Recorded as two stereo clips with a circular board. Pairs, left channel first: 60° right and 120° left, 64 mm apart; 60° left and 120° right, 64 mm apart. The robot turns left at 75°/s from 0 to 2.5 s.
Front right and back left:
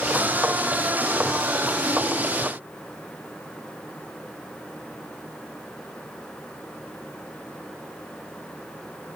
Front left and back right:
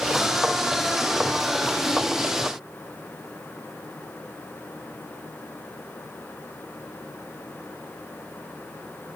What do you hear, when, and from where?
Only background noise.